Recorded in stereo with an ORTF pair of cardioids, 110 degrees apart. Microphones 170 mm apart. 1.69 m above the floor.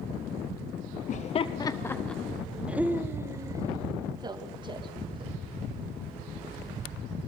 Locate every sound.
1.1 s laughter: 45° left, 0.9 m; by 5.4 s 30° right, 3.5 m